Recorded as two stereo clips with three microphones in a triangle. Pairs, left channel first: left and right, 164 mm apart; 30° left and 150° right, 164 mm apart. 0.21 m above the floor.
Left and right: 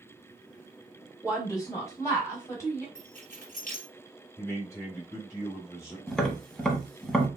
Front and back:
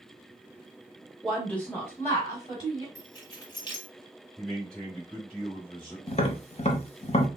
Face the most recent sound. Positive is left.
turn(degrees=5)